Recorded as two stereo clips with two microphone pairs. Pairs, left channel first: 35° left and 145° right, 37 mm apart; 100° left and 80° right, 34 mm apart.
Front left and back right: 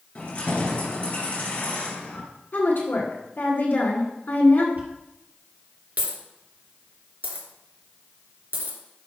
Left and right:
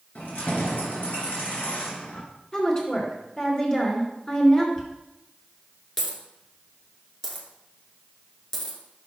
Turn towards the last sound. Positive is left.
turn(degrees=175)